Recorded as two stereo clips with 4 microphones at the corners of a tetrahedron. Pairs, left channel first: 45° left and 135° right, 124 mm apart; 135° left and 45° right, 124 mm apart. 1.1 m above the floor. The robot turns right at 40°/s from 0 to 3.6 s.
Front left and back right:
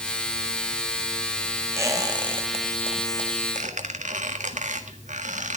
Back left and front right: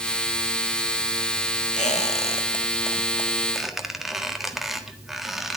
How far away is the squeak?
About 1.5 m.